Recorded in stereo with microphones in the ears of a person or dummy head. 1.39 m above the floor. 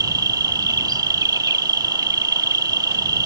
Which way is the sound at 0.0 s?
25° right (ahead or behind).